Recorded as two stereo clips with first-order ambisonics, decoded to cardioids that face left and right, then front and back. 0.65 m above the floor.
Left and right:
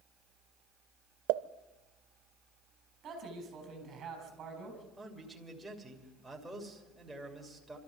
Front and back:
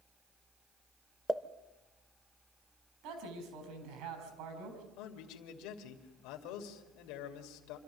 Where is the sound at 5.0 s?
5° right, 2.5 m.